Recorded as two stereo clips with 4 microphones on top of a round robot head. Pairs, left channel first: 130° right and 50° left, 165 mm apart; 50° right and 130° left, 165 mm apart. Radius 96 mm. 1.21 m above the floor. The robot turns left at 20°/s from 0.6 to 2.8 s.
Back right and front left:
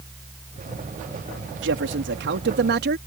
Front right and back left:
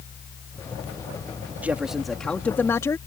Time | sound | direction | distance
1.6 | a man speaking | 50° left | ?